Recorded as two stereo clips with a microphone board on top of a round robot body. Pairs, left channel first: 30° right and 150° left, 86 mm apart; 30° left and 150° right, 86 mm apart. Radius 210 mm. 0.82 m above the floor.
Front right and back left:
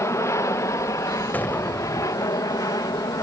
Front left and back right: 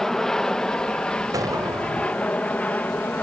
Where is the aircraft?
50° right; by 3.2 s 30° right.